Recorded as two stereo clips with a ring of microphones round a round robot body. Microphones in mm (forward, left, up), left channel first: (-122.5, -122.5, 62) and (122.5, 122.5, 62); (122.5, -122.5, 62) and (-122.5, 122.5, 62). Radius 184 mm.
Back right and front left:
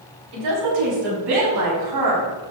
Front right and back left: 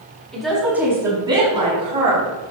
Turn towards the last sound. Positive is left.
turn(degrees=70)